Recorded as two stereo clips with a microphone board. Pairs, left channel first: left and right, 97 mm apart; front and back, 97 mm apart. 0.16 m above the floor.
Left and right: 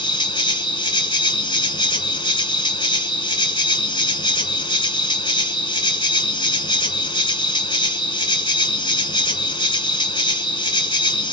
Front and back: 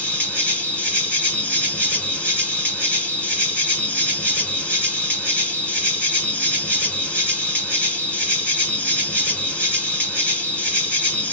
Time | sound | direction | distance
0.0 | an insect | 70° left | 1.2 m